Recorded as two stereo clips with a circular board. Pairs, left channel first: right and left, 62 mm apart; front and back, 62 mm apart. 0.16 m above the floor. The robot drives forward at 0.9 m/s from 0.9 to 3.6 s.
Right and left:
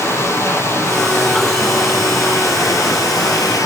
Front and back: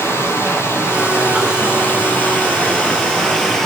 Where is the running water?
45° right, 4 m; by 3.7 s 85° right, 3 m.